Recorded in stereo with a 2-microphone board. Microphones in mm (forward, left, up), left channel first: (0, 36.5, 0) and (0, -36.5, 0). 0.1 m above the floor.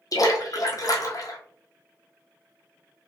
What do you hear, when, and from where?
0.1 s a splash: 55° left (ahead or behind), 0.8 m